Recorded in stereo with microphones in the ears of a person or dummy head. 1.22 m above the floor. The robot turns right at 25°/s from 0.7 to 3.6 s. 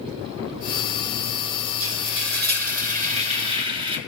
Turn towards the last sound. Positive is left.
turn(degrees=-30)